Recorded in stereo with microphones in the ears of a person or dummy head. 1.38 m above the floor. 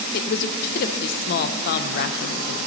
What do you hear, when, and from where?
0.1 s a woman speaking: 50° left (ahead or behind), 0.7 m